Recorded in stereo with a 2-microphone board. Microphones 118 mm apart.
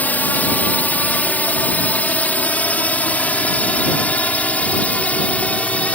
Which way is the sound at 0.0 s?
15° left (ahead or behind).